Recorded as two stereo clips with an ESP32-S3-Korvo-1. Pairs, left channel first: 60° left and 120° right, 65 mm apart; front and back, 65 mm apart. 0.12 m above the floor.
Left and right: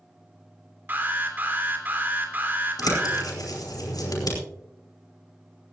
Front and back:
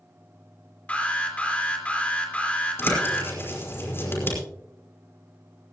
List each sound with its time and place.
0.9 s an alarm: 65° right, 3 m
2.8 s a bird: 55° left, 5 m